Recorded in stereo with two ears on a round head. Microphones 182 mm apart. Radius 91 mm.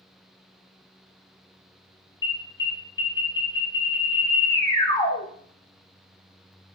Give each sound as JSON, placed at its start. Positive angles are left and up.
{"t": 2.2, "sound": "an alarm", "side_deg": 20, "distance_m": 3.0}